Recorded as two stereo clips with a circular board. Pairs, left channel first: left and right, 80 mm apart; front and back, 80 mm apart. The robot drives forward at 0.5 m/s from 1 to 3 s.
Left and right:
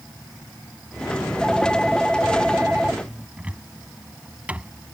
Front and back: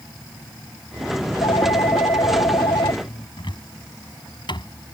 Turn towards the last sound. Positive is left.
turn(degrees=-15)